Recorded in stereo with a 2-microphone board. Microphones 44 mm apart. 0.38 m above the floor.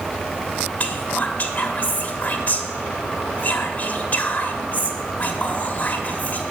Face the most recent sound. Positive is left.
turn(degrees=40)  # may be behind; listen again after turning